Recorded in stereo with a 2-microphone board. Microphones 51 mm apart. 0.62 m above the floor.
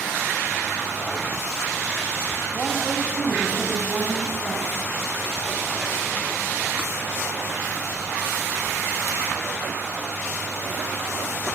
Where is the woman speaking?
15° right (ahead or behind), 4.5 m.